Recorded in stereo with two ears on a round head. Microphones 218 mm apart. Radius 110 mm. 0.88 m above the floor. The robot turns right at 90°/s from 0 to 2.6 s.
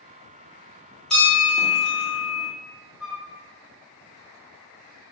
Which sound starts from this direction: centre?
A flute, at 3.0 s.